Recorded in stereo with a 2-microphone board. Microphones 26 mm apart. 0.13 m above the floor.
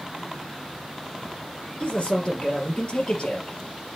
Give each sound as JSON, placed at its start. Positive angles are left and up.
{"t": 1.8, "sound": "a man speaking", "side_deg": 45, "distance_m": 3.0}